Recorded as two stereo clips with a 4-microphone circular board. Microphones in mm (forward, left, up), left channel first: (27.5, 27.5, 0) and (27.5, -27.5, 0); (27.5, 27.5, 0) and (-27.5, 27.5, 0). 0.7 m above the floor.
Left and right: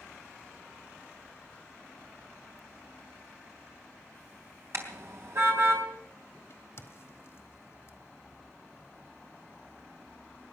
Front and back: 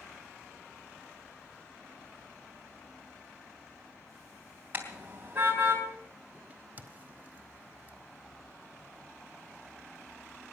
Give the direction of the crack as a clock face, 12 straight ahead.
8 o'clock.